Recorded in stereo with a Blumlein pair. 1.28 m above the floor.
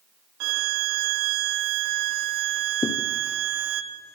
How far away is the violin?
About 1.2 m.